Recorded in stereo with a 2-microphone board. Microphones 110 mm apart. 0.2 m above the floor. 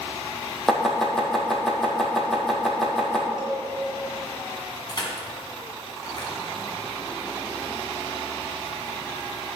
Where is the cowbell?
10° right (ahead or behind), 3 m.